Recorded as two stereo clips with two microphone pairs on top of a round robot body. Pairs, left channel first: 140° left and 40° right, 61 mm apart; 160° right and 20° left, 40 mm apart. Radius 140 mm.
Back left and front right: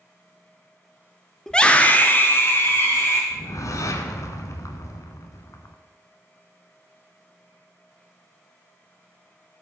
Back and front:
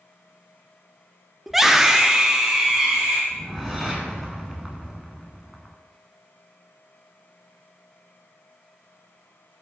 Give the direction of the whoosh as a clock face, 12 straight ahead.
9 o'clock.